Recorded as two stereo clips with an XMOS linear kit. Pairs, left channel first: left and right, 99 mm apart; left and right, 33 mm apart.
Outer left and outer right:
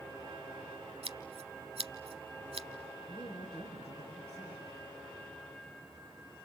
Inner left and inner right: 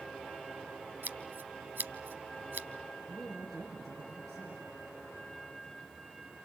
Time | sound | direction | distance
1.0 | scissors | 80° right | 0.9 m
3.1 | a woman speaking | 5° left (ahead or behind) | 6 m